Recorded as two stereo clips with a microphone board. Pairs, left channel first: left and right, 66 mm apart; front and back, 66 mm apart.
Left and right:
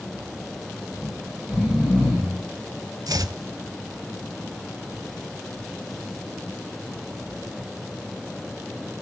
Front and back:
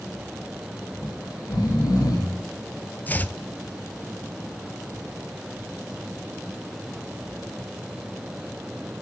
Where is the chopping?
65° right, 0.5 m.